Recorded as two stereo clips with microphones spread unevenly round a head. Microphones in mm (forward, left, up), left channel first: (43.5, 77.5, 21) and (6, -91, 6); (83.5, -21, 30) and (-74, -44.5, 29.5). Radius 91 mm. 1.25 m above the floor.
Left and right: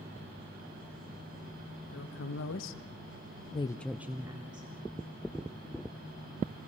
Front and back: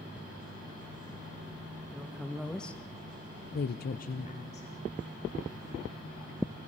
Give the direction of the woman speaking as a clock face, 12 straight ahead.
9 o'clock.